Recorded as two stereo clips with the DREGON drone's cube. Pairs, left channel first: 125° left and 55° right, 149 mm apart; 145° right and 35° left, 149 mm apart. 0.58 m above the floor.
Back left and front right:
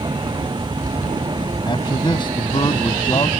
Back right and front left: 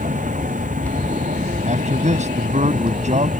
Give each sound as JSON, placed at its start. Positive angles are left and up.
{"t": 0.0, "sound": "a vehicle", "azimuth_deg": 5}
{"t": 1.7, "sound": "a man speaking", "azimuth_deg": 65}